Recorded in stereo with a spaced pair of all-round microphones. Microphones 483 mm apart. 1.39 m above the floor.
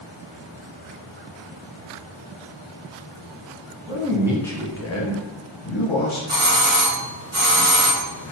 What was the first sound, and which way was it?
A man speaking, 20° right (ahead or behind).